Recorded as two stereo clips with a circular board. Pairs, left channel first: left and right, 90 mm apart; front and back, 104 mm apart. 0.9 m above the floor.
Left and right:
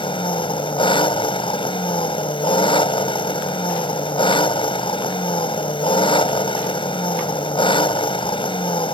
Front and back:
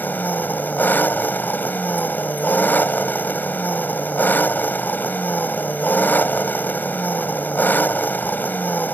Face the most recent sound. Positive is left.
turn(degrees=70)